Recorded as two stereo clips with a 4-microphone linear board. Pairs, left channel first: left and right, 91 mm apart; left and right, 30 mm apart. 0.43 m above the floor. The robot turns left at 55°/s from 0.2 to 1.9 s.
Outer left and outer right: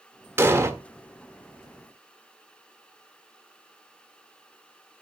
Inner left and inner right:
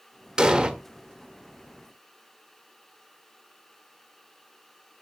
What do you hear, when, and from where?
0.4 s an explosion: 25° right (ahead or behind), 1.3 m